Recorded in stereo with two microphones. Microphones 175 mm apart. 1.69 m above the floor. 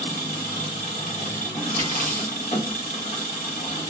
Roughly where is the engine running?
Left.